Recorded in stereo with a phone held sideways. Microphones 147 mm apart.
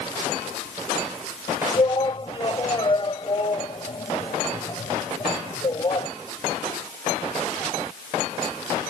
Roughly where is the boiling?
No boiling in this recording.